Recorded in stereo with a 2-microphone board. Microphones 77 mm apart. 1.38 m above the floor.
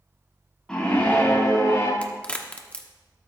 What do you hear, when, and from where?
0.7 s a scream: 5° left (ahead or behind), 3 m; by 1.9 s 45° left (ahead or behind), 2.5 m
2.0 s a crack: 15° left (ahead or behind), 1.0 m